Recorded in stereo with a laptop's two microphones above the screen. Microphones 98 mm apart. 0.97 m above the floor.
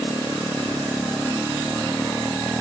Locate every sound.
Only background noise.